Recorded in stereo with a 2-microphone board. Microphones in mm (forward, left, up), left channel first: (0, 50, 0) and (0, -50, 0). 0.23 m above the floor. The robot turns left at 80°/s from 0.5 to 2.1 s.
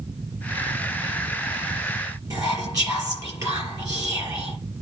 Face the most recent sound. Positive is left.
turn(degrees=-35)  # may be behind; listen again after turning